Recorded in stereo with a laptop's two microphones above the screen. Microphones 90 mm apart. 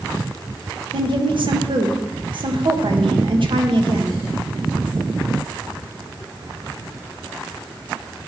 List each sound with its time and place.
0.9 s a woman speaking: 65° right (ahead or behind), 1.1 m